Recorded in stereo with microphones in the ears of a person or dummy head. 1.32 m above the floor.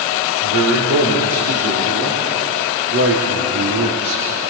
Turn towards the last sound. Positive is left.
turn(degrees=-65)  # may be behind; listen again after turning